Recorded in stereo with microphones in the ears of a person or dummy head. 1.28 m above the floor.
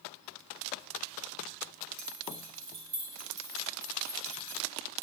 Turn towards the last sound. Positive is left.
turn(degrees=-60)  # may be behind; listen again after turning